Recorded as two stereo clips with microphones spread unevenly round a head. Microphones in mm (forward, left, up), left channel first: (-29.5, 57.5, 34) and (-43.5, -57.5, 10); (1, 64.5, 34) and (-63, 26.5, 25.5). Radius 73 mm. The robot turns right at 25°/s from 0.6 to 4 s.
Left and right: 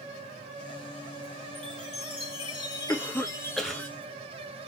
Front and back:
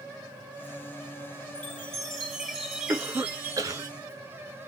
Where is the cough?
150° left, 1.6 m; by 3.8 s 175° left, 1.6 m.